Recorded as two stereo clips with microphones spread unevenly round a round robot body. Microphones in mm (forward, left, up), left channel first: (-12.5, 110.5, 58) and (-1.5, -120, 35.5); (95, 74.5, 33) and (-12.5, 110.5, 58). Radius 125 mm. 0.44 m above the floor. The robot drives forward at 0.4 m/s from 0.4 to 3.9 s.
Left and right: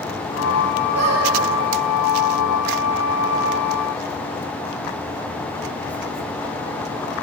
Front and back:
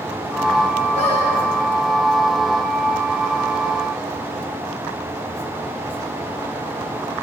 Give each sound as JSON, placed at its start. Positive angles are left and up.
{"t": 0.9, "sound": "a squeak", "azimuth_deg": -70, "distance_m": 7.5}